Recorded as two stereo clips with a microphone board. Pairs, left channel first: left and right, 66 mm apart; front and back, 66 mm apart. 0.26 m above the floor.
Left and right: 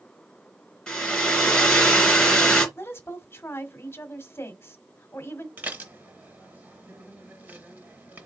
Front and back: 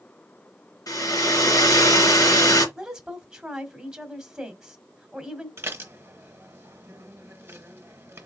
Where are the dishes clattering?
140° right, 1.1 m.